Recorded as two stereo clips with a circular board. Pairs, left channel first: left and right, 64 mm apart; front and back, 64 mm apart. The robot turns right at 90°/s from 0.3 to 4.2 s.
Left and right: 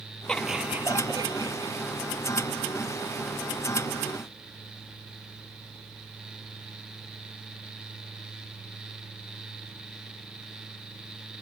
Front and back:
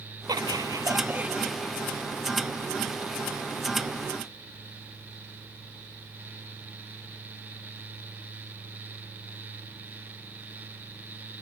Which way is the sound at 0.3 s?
165° left.